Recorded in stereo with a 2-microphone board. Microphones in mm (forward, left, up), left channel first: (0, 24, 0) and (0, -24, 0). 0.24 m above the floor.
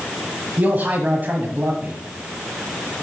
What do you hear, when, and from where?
0.6 s a man speaking: 40° right (ahead or behind), 1.2 m